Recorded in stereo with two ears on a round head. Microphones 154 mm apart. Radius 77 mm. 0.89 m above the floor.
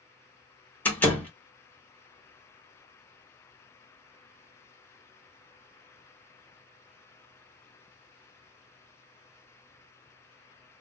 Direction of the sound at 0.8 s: 10° left (ahead or behind).